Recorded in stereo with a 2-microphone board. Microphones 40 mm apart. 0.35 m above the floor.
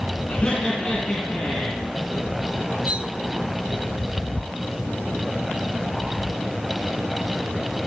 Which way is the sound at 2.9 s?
30° right (ahead or behind).